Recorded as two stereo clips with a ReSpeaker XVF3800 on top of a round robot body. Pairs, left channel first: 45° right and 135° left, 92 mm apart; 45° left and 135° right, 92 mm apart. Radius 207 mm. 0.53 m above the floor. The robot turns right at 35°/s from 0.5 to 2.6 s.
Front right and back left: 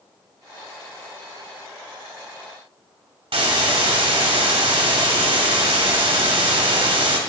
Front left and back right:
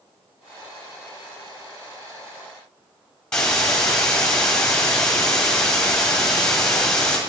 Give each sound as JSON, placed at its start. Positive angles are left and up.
{"t": 3.3, "sound": "a hiss", "azimuth_deg": 125, "distance_m": 1.7}